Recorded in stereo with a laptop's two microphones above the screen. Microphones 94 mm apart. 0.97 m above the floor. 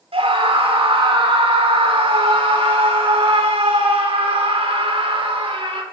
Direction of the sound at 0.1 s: 80° right.